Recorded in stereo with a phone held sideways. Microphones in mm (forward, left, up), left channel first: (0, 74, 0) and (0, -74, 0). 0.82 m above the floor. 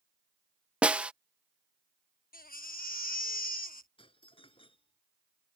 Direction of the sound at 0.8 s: 10° right (ahead or behind).